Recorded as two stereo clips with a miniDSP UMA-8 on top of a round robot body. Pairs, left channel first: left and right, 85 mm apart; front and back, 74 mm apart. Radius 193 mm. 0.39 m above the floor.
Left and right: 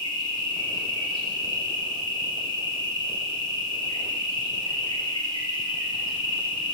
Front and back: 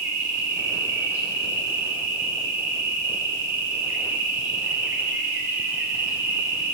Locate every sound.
0.0 s an insect: 120° left, 1.6 m